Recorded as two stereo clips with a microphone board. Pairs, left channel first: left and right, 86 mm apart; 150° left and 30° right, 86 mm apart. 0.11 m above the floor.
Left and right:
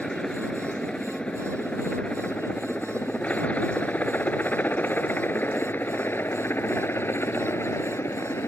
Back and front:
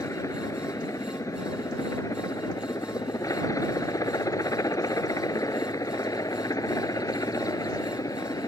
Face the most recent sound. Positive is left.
turn(degrees=135)